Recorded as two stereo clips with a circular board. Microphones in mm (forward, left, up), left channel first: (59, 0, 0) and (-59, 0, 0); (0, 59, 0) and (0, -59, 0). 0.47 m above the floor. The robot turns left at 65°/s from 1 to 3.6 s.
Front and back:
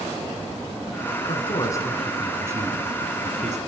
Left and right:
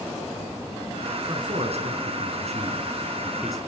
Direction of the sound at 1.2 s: 30° right.